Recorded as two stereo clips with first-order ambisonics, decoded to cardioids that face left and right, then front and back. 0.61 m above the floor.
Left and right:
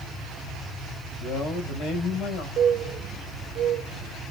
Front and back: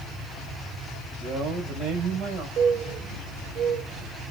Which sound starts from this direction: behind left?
A man speaking, at 1.2 s.